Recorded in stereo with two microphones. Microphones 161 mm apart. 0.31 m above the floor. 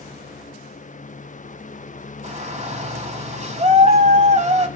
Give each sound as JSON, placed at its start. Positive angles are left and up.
{"t": 2.2, "sound": "a shout", "side_deg": -45, "distance_m": 1.5}